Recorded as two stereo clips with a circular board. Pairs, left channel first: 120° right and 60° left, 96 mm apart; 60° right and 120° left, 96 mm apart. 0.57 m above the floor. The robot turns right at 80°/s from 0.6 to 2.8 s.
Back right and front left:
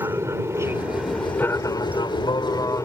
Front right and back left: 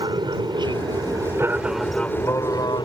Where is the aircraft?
110° left; by 2.9 s 75° right.